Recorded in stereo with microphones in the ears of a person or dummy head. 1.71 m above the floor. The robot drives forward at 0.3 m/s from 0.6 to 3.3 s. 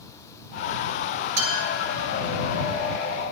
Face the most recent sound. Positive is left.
turn(degrees=-50)  # may be behind; listen again after turning